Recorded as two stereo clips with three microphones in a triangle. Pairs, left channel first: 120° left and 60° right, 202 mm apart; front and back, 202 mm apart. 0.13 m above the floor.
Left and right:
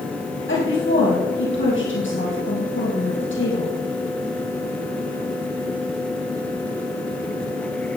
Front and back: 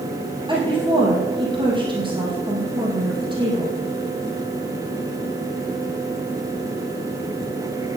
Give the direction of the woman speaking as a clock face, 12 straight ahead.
8 o'clock.